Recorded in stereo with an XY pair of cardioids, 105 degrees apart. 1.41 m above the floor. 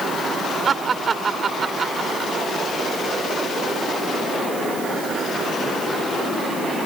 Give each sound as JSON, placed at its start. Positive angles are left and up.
{"t": 0.7, "sound": "laughter", "azimuth_deg": -45}